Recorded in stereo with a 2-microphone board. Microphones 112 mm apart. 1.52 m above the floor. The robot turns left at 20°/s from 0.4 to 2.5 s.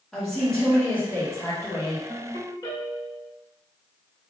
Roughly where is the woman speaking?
Behind.